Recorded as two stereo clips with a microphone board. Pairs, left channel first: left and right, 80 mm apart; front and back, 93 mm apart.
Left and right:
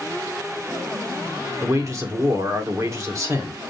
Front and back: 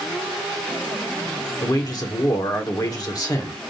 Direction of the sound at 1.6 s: 45° right.